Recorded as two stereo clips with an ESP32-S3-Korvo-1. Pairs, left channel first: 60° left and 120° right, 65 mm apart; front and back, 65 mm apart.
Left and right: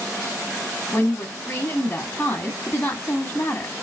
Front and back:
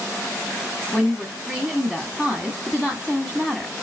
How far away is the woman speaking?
About 1.3 m.